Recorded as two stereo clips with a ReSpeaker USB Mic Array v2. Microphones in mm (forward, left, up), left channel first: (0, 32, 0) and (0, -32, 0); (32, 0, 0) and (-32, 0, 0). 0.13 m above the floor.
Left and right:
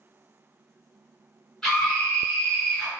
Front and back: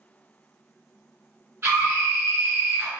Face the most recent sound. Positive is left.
turn(degrees=165)